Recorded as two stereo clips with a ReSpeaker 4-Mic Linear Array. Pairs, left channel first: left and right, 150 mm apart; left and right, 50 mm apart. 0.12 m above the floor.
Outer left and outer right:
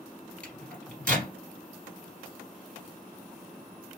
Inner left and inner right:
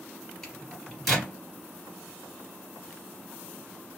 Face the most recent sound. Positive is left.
turn(degrees=10)  # may be behind; listen again after turning